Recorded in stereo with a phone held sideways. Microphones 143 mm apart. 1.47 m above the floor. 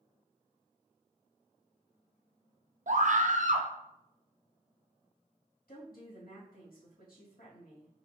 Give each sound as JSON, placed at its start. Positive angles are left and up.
{"t": 2.9, "sound": "a scream", "side_deg": -60, "distance_m": 0.8}
{"t": 5.7, "sound": "a woman speaking", "side_deg": 85, "distance_m": 2.5}